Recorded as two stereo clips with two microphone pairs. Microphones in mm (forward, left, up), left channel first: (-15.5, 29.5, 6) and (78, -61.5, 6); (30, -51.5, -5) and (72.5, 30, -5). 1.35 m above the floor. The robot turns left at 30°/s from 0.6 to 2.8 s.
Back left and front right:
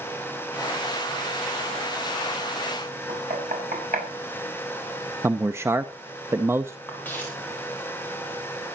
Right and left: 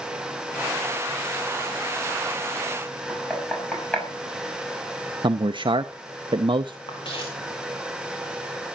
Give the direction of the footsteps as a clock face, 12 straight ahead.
5 o'clock.